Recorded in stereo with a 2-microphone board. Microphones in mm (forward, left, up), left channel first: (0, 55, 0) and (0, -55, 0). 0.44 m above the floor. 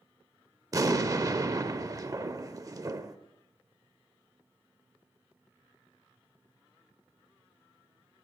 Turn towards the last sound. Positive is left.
turn(degrees=-30)  # may be behind; listen again after turning